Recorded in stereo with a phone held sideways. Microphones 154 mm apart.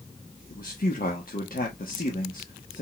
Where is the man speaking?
70° left (ahead or behind), 1.2 m.